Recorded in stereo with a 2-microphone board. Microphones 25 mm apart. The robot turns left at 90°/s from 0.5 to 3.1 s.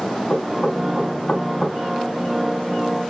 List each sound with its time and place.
0.3 s knocking: 35° left (ahead or behind), 1.6 m; by 1.8 s 20° left (ahead or behind), 1.6 m